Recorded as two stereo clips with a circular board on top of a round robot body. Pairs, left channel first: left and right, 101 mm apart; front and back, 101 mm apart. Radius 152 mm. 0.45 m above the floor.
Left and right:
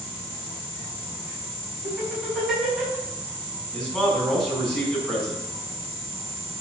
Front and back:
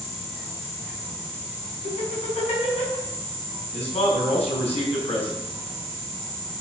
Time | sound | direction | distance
1.8 | laughter | 5° right | 5.5 m
3.7 | a man speaking | 5° left | 4.5 m